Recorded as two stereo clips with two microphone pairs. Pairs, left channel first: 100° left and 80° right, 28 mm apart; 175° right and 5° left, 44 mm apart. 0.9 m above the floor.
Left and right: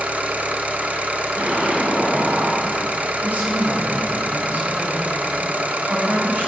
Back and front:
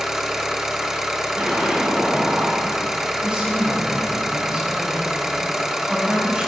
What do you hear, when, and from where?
0.0 s an engine running: 75° right, 1.1 m
1.4 s an explosion: 55° right, 4 m
3.2 s a woman speaking: 60° right, 4.5 m